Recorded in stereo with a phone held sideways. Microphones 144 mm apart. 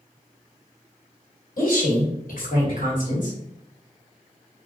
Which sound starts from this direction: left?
A woman speaking, at 1.6 s.